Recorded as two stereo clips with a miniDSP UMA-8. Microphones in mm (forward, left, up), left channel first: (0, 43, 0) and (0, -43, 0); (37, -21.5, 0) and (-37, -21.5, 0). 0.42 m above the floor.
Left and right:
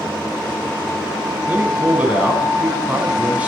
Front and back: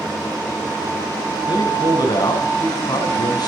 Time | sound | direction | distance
1.5 | a man speaking | 15° right | 4 m